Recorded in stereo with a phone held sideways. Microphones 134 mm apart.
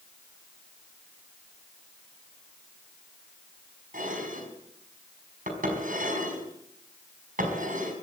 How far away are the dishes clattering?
About 5 m.